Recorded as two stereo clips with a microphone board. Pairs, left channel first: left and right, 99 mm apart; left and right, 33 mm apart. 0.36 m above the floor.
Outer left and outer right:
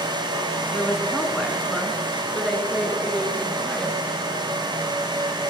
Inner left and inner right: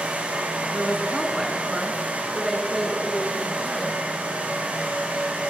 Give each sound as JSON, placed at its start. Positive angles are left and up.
{"t": 0.7, "sound": "a woman speaking", "side_deg": 0, "distance_m": 4.5}